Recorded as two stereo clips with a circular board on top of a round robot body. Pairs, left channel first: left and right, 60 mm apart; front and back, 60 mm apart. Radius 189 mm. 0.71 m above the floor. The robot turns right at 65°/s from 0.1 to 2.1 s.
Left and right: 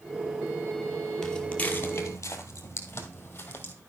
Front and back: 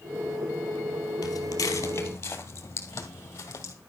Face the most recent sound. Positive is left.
turn(degrees=35)